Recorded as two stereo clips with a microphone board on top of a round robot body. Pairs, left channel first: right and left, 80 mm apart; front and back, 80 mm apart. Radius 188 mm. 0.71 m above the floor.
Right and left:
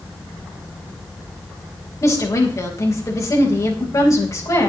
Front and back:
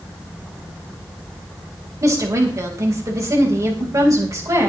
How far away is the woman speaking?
About 4 m.